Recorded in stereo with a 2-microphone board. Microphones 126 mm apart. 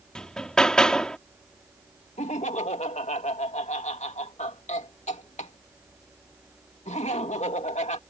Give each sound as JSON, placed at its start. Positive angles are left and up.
{"t": 0.1, "sound": "hammering", "side_deg": 5}
{"t": 2.2, "sound": "laughter", "side_deg": 75}